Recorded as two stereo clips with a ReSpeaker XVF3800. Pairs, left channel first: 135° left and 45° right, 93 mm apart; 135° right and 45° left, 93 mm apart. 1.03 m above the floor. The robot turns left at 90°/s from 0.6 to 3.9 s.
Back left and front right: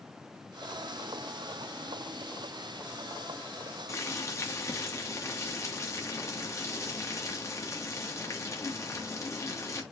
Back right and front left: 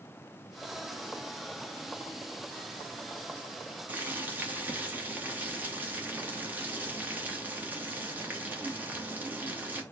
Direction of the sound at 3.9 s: 105° left.